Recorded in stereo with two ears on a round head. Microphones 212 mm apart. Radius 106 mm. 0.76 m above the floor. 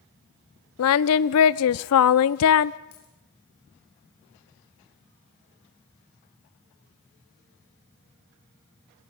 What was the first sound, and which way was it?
Singing, 70° left (ahead or behind).